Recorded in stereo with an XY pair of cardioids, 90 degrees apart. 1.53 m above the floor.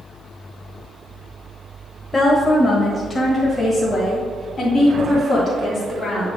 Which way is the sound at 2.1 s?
25° left.